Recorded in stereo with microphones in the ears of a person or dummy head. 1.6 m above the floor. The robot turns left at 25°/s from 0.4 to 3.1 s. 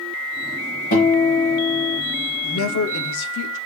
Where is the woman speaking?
70° left (ahead or behind), 0.9 m; by 3.6 s 80° left, 0.9 m.